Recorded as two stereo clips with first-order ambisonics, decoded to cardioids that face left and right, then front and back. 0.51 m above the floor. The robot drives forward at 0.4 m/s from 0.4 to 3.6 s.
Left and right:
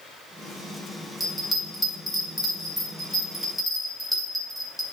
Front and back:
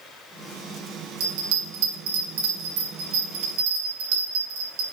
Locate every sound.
1.2 s a bell: straight behind, 3 m